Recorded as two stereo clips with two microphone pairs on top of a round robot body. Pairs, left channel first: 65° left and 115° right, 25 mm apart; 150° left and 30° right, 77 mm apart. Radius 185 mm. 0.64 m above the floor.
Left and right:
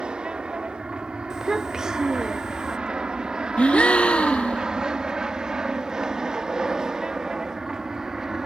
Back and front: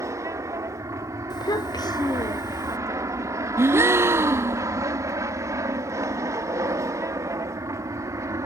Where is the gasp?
25° left.